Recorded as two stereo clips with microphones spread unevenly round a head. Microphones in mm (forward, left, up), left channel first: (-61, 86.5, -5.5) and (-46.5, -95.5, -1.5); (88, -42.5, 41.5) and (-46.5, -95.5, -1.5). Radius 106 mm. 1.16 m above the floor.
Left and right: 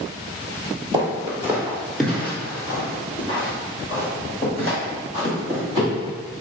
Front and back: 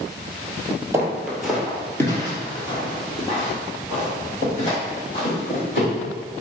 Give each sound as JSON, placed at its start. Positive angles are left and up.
{"t": 0.9, "sound": "footsteps", "azimuth_deg": -65, "distance_m": 1.2}